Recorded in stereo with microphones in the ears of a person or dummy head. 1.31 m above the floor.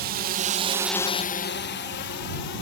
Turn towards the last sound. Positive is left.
turn(degrees=60)  # may be behind; listen again after turning